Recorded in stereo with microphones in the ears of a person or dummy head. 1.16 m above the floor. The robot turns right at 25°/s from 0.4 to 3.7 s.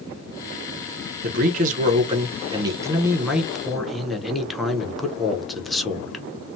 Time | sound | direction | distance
1.2 | a man speaking | 55° right | 0.8 m